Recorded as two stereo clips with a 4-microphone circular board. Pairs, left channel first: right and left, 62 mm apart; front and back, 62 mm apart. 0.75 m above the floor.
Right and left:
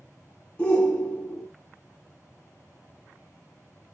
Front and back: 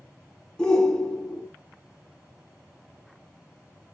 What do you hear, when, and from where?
0.6 s a shout: 50° right, 0.7 m